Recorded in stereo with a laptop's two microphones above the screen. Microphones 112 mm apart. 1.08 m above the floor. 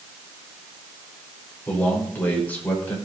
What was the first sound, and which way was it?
A man speaking, 15° left (ahead or behind).